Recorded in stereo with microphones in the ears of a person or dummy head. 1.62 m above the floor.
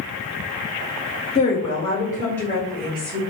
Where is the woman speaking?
35° left (ahead or behind), 0.8 m; by 3.2 s 5° left (ahead or behind), 1.6 m.